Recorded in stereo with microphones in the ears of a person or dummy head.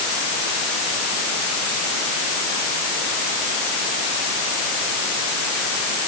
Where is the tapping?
No tapping in this recording.